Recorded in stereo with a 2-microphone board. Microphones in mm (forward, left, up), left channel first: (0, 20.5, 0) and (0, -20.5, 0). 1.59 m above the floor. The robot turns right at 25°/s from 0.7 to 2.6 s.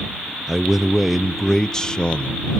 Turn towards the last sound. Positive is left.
turn(degrees=35)